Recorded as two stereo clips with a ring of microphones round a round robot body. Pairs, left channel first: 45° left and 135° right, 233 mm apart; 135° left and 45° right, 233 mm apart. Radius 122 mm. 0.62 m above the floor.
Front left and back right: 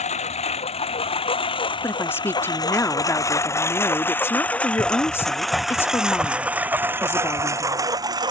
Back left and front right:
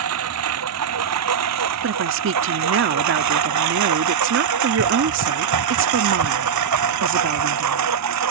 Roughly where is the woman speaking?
Ahead right.